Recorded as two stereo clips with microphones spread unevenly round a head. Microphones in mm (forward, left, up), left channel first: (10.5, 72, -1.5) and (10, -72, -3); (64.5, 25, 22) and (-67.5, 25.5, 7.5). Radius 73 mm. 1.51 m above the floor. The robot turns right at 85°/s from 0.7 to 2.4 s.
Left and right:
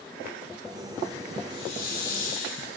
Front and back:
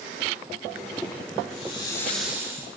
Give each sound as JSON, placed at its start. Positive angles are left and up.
{"t": 1.5, "sound": "a hiss", "azimuth_deg": 30, "distance_m": 4.5}